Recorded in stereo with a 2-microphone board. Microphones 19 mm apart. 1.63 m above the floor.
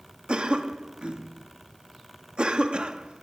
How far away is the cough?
About 2.5 m.